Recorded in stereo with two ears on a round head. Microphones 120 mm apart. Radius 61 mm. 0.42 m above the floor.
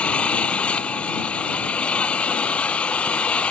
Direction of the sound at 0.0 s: 10° left (ahead or behind).